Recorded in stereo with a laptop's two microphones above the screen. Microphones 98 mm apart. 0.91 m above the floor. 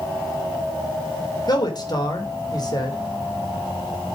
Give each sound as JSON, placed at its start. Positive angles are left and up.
{"t": 1.5, "sound": "a man speaking", "side_deg": 45, "distance_m": 2.5}